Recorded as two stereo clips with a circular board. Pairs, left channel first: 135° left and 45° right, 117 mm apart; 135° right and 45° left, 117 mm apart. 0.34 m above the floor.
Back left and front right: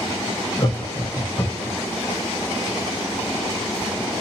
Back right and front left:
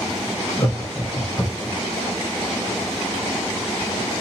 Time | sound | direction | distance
0.6 | laughter | straight behind | 1.6 m